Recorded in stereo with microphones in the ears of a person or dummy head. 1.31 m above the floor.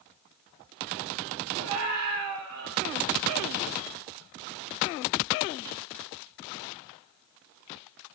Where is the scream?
90° right, 5 m; by 2.8 s 85° right, 4 m.